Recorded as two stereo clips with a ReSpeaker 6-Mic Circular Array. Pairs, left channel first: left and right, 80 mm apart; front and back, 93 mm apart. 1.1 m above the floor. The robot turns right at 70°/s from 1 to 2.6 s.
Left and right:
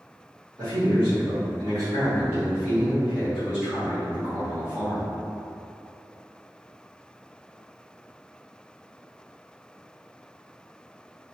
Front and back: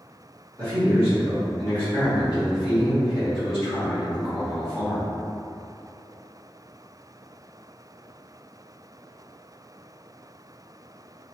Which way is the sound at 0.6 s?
125° right.